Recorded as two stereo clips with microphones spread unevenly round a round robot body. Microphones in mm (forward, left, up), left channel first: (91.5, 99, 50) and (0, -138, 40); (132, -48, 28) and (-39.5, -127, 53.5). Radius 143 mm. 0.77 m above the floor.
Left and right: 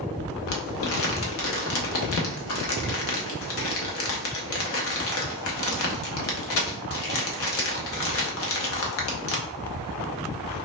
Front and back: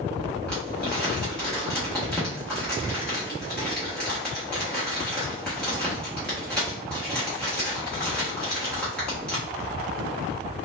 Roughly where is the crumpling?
Left.